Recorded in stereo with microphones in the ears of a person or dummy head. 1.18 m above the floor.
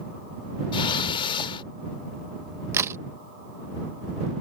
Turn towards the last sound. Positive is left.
turn(degrees=-15)  # may be behind; listen again after turning